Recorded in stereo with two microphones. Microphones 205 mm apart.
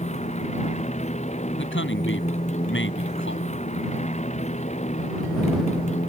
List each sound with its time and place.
0.0 s a motorcycle: 35° left (ahead or behind)
1.6 s a man speaking: 75° left (ahead or behind)